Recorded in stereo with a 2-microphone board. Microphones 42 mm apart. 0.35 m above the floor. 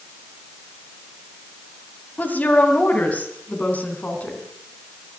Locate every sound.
2.2 s a woman speaking: 40° left (ahead or behind), 2 m; by 4.4 s 35° left (ahead or behind), 3.5 m